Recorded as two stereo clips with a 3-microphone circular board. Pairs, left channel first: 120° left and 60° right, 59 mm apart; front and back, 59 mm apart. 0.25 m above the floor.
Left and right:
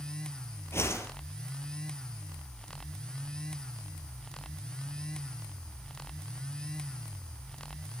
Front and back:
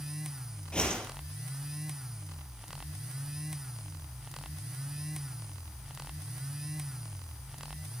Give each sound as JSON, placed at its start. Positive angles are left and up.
{"t": 0.7, "sound": "a whoosh", "azimuth_deg": 75, "distance_m": 4.5}